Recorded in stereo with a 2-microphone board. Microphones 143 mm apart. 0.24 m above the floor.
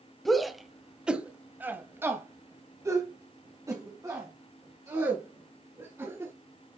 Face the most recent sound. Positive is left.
turn(degrees=-25)  # may be behind; listen again after turning